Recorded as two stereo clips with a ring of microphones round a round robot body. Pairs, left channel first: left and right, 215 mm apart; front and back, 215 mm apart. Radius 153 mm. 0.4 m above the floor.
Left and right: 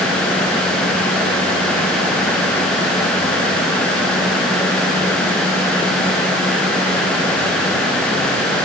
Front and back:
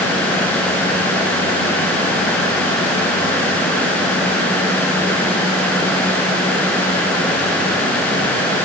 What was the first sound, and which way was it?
Only background noise.